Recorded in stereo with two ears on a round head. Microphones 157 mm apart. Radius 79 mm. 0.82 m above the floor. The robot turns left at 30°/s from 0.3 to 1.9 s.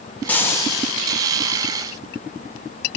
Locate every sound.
0.3 s frying: 10° left (ahead or behind), 1.9 m; by 1.0 s 30° left (ahead or behind), 1.9 m